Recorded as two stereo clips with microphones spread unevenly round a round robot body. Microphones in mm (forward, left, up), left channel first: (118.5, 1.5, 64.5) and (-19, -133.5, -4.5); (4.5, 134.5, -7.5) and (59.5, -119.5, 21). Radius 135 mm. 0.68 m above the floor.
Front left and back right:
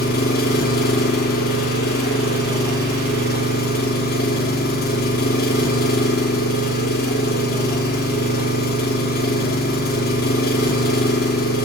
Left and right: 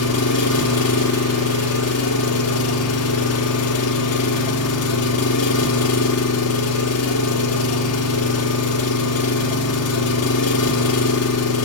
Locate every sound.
0.0 s an engine running: 100° left, 1.6 m